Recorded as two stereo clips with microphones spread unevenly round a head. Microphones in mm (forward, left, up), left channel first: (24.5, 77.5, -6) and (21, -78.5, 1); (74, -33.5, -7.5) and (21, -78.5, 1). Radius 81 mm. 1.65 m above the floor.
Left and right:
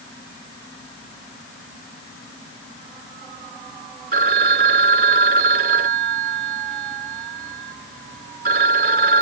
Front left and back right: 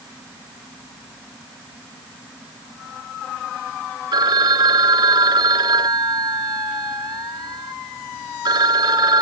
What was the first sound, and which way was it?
A phone ringing, 130° right.